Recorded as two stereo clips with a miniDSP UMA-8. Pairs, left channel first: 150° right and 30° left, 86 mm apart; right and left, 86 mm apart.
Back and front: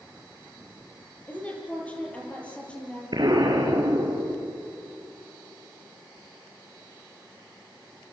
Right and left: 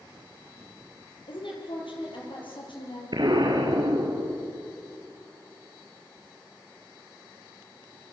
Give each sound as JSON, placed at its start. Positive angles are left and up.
{"t": 1.3, "sound": "a woman speaking", "azimuth_deg": -80, "distance_m": 8.0}
{"t": 3.1, "sound": "an explosion", "azimuth_deg": 65, "distance_m": 4.0}